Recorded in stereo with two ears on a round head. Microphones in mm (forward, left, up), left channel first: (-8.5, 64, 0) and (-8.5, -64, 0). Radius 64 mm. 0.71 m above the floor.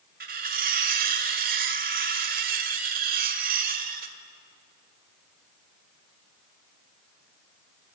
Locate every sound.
0.2 s cutlery clinking: 65° right (ahead or behind), 1.6 m